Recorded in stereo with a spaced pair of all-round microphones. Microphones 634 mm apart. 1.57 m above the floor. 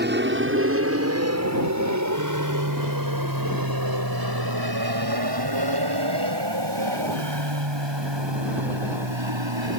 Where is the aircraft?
15° right (ahead or behind); by 9.8 s 45° right (ahead or behind).